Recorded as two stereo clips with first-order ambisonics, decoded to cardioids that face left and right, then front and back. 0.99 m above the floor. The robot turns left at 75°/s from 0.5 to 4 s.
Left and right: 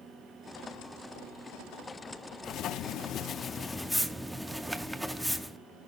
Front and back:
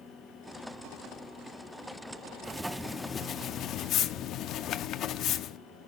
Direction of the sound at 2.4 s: 110° left.